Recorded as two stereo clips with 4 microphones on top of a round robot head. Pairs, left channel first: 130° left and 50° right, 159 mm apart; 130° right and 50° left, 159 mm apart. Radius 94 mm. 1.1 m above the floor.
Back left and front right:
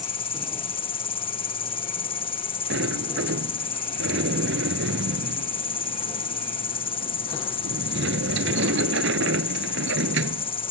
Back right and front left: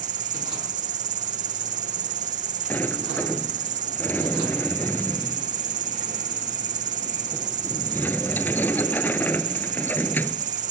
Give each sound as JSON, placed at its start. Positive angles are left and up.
{"t": 0.0, "sound": "an insect", "azimuth_deg": 80}
{"t": 2.7, "sound": "a sliding door", "azimuth_deg": -55}